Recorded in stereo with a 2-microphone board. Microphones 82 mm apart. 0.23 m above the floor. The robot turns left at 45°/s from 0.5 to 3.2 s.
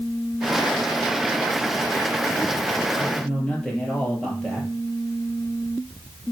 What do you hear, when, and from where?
3.0 s a man speaking: 15° left (ahead or behind), 4.5 m; by 4.7 s 5° left (ahead or behind), 4.5 m